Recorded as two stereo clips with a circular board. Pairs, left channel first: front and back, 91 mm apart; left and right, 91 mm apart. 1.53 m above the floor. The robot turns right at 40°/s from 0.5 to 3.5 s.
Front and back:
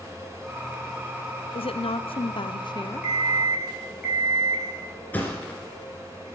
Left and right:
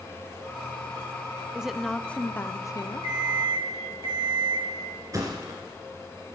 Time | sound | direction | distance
1.6 | a woman speaking | 10° right | 0.5 m
3.0 | an alarm clock | 120° right | 3.5 m
5.1 | a thud | 60° right | 2 m